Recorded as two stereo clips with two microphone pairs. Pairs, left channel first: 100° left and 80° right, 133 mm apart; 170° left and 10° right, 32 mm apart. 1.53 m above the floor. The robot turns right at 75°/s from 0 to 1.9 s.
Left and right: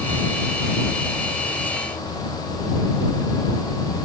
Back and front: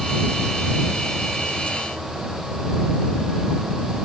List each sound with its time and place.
Only background noise.